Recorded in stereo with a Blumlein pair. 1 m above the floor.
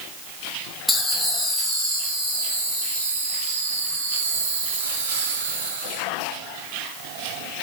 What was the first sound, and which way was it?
Laughter, 10° left.